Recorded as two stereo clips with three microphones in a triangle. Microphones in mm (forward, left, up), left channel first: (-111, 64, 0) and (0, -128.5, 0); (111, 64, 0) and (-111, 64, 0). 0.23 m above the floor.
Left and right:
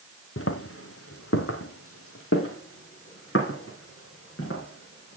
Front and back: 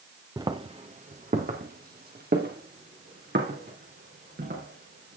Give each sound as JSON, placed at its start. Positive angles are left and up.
{"t": 0.4, "sound": "footsteps", "azimuth_deg": 105, "distance_m": 1.2}